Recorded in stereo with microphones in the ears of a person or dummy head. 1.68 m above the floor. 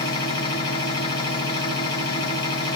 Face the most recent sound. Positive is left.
turn(degrees=25)  # may be behind; listen again after turning